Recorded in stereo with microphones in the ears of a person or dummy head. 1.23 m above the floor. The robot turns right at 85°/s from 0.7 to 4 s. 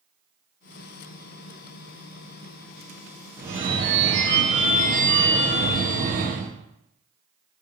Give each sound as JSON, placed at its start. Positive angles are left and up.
{"t": 3.4, "sound": "a phone ringing", "azimuth_deg": -160, "distance_m": 0.7}